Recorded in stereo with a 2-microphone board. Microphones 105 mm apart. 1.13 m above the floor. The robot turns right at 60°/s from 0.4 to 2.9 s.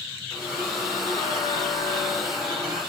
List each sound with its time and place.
0.3 s a squeak: 15° left, 2.5 m; by 2.8 s 160° left, 2.5 m